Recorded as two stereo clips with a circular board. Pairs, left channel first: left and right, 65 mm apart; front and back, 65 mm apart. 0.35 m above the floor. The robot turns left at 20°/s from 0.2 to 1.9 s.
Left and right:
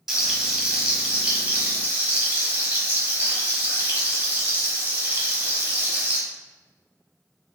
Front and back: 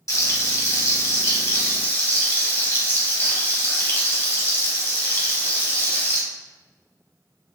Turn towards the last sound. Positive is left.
turn(degrees=-40)